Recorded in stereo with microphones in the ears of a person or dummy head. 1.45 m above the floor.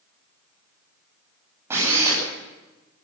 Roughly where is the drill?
Centre.